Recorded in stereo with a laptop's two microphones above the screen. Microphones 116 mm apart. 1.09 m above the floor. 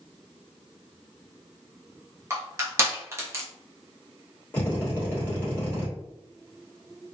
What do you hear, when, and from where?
2.3 s crushing: 25° right (ahead or behind), 0.6 m
4.5 s a drill: 15° left (ahead or behind), 1.0 m